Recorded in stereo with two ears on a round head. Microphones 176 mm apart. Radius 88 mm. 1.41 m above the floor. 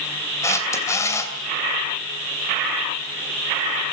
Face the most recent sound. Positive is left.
turn(degrees=15)  # may be behind; listen again after turning